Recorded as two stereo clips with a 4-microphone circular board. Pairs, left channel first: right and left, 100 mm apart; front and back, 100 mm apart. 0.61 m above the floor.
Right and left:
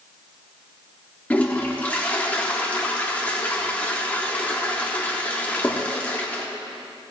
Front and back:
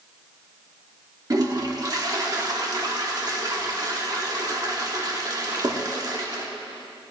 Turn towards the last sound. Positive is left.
turn(degrees=-160)